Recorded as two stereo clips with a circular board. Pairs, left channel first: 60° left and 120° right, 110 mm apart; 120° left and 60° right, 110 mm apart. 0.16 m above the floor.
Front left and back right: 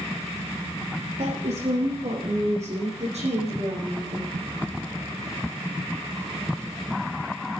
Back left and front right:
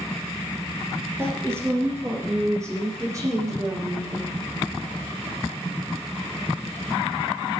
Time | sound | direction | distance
1.2 | a woman speaking | 130° right | 6 m